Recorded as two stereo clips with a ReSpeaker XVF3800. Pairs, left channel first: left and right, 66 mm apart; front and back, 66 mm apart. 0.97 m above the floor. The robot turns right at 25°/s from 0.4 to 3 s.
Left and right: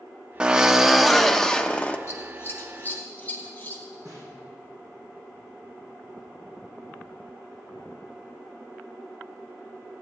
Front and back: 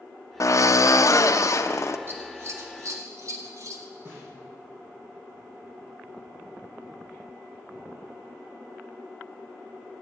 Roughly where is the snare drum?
Behind right.